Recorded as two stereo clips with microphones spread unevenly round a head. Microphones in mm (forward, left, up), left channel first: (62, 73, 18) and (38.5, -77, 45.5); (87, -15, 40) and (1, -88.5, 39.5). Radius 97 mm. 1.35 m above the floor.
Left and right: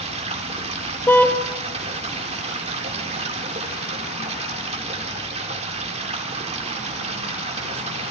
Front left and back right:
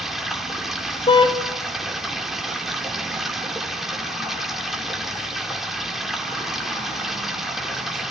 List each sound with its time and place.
0.0 s running water: 50° right, 4 m
1.1 s a car horn: straight ahead, 3 m